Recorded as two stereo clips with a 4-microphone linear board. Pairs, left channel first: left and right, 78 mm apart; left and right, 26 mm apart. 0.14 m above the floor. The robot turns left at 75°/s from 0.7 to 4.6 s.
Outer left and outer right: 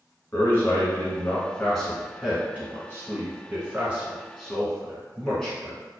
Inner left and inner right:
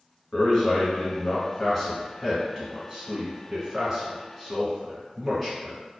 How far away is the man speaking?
About 1.1 m.